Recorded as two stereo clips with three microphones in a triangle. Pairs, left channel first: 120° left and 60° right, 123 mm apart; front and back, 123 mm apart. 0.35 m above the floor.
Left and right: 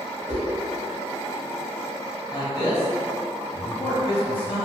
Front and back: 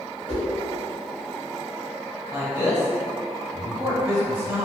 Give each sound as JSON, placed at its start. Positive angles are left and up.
{"t": 0.3, "sound": "a whoosh", "azimuth_deg": -40, "distance_m": 1.9}
{"t": 2.3, "sound": "a man speaking", "azimuth_deg": 120, "distance_m": 1.1}